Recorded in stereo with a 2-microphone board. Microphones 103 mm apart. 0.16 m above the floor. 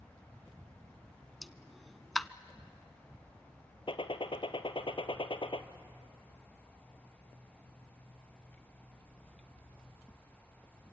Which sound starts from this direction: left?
A gunshot, at 3.9 s.